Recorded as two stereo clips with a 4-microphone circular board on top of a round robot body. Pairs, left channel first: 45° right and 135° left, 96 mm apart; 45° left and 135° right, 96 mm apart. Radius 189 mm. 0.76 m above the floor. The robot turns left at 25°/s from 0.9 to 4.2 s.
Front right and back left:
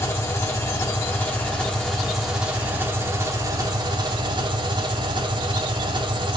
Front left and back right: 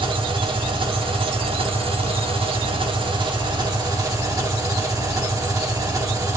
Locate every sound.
0.0 s an engine running: 105° right, 2.5 m; by 6.4 s 175° left, 2.5 m